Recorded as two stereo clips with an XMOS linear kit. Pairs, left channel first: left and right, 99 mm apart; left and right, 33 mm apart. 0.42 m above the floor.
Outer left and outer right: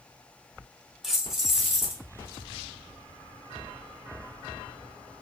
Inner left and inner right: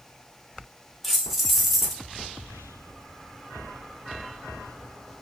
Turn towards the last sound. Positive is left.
turn(degrees=0)  # may be behind; listen again after turning